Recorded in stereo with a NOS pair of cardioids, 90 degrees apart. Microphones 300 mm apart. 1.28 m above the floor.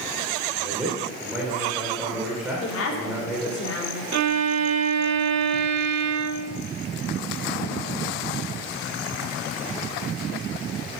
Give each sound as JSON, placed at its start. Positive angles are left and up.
{"t": 0.6, "sound": "a man speaking", "azimuth_deg": -5, "distance_m": 4.0}
{"t": 2.6, "sound": "a woman speaking", "azimuth_deg": 45, "distance_m": 3.5}
{"t": 4.1, "sound": "a violin", "azimuth_deg": -60, "distance_m": 0.8}